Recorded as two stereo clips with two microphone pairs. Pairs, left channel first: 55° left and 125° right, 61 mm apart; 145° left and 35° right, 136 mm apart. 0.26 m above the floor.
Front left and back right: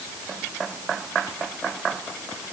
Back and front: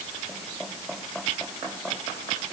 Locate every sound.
Only background noise.